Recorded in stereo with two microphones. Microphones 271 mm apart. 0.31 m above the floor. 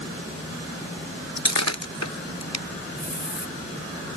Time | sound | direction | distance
1.4 | breaking glass | 85° left | ?
3.0 | a hiss | 40° left (ahead or behind) | ?